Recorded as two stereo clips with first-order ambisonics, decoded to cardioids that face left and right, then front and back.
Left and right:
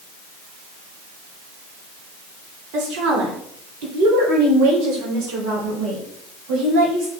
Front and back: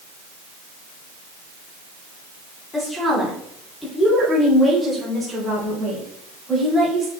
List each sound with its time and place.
2.7 s a woman speaking: 75° right, 2.5 m; by 7.1 s 95° right, 5 m